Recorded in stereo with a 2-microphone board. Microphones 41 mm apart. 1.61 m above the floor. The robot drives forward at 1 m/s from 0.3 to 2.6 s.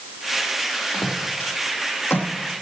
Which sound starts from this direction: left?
Footsteps, at 0.9 s.